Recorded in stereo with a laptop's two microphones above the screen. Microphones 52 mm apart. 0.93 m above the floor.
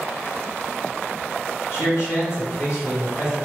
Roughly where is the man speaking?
Left.